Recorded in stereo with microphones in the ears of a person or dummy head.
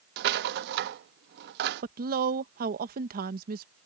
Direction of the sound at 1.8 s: 45° right (ahead or behind).